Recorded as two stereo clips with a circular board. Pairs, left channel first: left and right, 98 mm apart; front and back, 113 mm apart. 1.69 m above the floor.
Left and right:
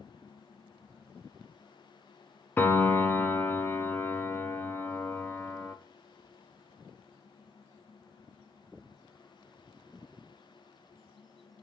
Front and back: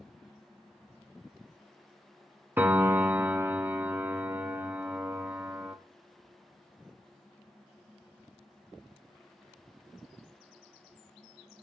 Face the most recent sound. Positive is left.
turn(degrees=130)